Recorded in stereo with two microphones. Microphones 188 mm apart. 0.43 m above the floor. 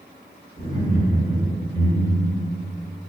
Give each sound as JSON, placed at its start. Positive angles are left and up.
{"t": 0.6, "sound": "laughter", "side_deg": -25, "distance_m": 1.7}